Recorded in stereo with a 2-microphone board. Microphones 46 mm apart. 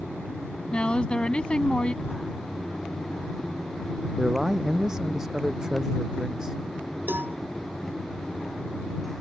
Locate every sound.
0.7 s a woman speaking: 25° left (ahead or behind)
2.0 s writing: 65° left (ahead or behind)
4.2 s a man speaking: 10° right (ahead or behind)
7.1 s a cowbell: 45° right (ahead or behind)